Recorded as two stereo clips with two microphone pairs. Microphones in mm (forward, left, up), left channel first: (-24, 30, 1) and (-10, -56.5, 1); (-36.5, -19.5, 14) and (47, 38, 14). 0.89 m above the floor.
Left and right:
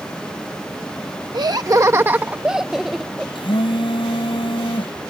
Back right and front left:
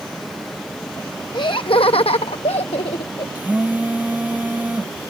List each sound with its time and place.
1.3 s laughter: 105° right; by 3.2 s 175° right
3.4 s a phone buzzing: 110° left